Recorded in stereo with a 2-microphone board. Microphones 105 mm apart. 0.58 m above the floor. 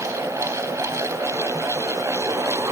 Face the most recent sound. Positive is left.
No sound to turn to.